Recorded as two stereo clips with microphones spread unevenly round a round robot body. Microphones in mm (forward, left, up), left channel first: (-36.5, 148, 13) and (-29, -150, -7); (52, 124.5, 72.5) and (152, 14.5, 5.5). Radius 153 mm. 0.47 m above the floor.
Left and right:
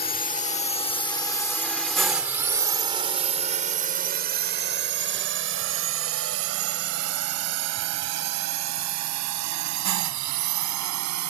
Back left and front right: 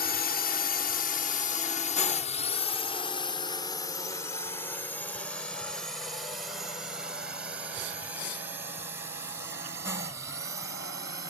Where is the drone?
135° left; by 11.3 s 110° right.